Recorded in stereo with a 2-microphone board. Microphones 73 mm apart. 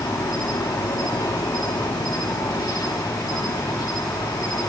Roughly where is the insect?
Left.